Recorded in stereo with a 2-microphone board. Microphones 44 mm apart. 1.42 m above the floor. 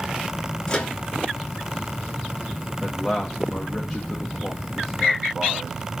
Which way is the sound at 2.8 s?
Centre (ahead or behind).